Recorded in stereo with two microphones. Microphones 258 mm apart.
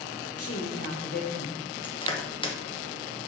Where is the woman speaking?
65° left (ahead or behind), 1.5 m; by 1.6 s 20° left (ahead or behind), 1.4 m.